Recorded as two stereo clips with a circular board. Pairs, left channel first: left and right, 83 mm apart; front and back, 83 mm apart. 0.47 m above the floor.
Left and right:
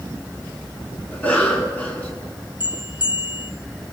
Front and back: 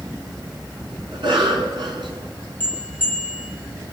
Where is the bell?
70° left, 3 m.